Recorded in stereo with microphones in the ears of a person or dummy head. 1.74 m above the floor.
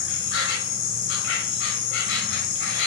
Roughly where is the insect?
Left.